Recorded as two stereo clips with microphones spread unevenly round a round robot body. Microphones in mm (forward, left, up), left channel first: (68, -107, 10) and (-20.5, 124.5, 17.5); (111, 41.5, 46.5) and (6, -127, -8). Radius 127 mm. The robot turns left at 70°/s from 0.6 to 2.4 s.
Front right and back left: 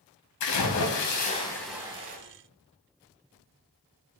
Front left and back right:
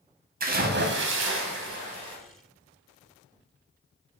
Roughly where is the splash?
Right.